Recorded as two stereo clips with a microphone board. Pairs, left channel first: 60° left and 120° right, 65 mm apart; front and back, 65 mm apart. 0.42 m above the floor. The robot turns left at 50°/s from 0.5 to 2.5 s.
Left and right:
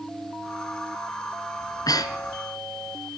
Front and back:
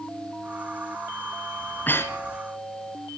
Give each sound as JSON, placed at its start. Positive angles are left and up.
{"t": 1.6, "sound": "breathing", "azimuth_deg": 70, "distance_m": 2.0}